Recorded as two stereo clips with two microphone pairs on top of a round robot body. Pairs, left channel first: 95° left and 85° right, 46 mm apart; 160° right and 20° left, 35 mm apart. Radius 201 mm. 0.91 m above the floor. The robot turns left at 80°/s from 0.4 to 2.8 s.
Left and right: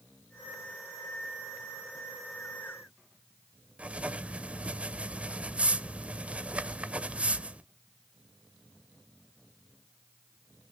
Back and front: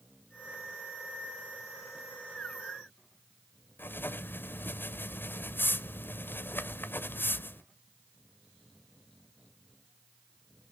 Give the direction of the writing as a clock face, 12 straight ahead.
5 o'clock.